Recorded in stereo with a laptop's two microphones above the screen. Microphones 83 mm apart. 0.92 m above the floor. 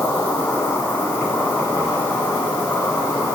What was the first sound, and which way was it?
An insect, 25° left (ahead or behind).